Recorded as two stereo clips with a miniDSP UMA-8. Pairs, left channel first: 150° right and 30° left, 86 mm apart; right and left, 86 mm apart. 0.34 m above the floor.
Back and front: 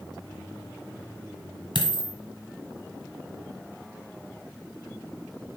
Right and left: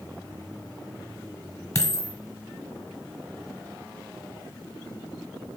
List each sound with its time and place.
1.8 s a dropped coin: 140° right, 1.3 m